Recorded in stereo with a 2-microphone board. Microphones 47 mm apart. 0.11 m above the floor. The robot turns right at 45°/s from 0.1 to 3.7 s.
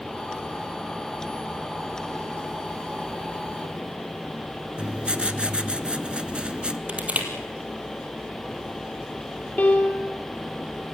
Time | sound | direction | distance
4.8 | writing | 20° right (ahead or behind) | 0.8 m
6.9 | crushing | 25° right (ahead or behind) | 3.5 m
9.6 | a piano | 35° left (ahead or behind) | 3 m